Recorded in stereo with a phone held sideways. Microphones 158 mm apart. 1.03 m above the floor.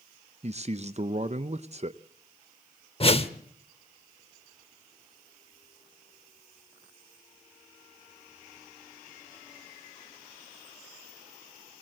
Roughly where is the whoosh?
Left.